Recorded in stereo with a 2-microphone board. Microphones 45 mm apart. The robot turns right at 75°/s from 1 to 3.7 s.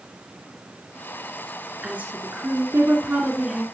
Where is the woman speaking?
145° right, 2 m; by 3.6 s 10° right, 2 m.